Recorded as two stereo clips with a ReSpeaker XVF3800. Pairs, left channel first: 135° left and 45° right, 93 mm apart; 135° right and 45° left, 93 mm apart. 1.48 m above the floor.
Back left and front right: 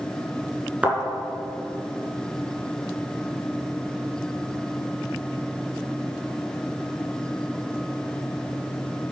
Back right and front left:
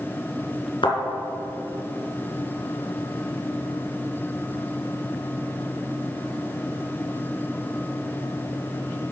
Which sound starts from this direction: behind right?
A thud, at 0.8 s.